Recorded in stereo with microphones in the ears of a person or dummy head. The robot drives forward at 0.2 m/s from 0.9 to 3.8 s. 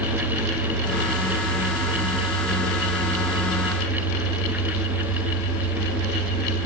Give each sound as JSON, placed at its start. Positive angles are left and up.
{"t": 0.0, "sound": "an engine running", "side_deg": 25, "distance_m": 1.5}